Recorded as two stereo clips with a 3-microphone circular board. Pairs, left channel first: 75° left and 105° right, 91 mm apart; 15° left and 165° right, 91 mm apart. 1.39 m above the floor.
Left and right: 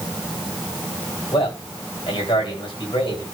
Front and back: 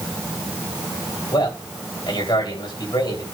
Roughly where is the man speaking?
Ahead left.